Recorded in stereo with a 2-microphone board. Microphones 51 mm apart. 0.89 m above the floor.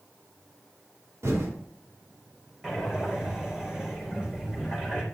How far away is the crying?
No crying in this recording.